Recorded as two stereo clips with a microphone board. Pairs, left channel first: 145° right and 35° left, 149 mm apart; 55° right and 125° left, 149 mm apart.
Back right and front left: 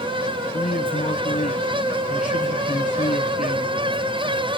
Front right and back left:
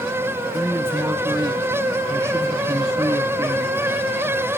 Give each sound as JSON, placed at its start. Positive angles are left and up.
{"t": 0.5, "sound": "a man speaking", "azimuth_deg": -170, "distance_m": 3.5}